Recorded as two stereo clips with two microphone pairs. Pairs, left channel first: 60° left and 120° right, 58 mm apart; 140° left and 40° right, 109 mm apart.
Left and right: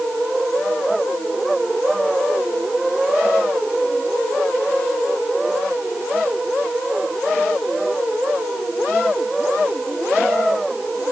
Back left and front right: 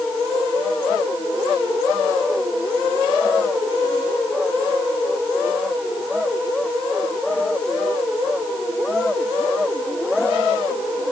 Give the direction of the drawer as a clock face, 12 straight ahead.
No drawer in this recording.